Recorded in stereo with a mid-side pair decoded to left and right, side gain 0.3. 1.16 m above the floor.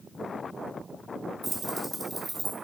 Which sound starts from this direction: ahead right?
Keys jangling, at 1.4 s.